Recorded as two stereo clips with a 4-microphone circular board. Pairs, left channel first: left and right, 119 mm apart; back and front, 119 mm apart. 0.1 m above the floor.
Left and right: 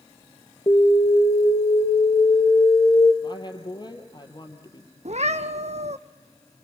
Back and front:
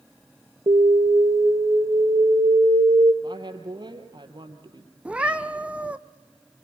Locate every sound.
0.7 s an alarm: 40° left, 3 m
3.2 s a woman speaking: 45° left, 3 m
5.0 s a cat meowing: 80° right, 0.9 m